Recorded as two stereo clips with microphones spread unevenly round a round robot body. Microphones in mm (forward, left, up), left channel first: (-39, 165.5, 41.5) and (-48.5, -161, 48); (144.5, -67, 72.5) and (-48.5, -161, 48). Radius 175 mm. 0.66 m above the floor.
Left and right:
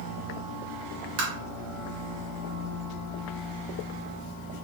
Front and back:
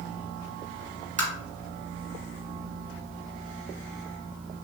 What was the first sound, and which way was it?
Tapping, 95° right.